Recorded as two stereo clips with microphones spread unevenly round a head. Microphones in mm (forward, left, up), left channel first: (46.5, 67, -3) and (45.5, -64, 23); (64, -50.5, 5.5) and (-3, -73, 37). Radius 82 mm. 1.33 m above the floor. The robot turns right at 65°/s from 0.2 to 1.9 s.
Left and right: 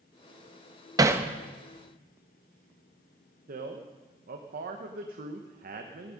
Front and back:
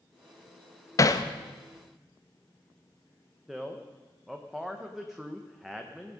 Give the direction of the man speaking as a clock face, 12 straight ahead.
3 o'clock.